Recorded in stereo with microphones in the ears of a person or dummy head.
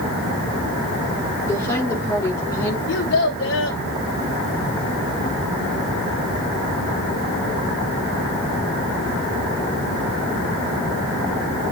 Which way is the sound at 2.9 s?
55° left (ahead or behind).